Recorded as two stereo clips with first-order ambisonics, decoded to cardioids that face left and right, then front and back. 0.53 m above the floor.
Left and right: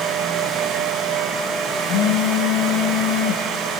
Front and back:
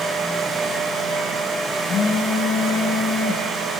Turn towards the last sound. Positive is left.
turn(degrees=60)